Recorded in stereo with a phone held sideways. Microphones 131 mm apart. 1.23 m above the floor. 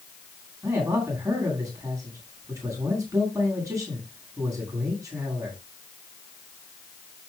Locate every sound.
0.6 s a man speaking: 25° right (ahead or behind), 9.5 m